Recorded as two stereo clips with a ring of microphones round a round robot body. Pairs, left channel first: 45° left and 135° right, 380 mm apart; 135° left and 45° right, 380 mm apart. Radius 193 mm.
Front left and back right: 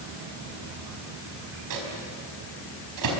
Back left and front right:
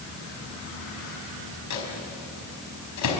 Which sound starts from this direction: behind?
A microwave, at 1.7 s.